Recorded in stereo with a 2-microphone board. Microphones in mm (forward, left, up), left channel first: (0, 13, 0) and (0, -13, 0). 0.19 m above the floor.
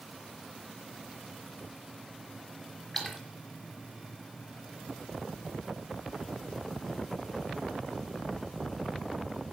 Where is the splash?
10° left (ahead or behind), 3 m.